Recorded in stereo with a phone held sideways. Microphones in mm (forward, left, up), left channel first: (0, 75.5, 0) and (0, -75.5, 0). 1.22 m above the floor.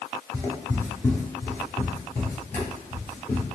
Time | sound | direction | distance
0.3 | footsteps | 15° left (ahead or behind) | 1.3 m